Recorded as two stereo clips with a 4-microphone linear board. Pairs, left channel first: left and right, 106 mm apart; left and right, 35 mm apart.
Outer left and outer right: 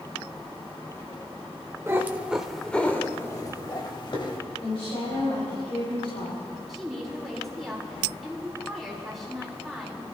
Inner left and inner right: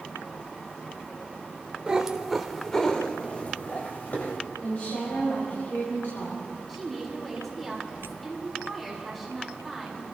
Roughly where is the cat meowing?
Right.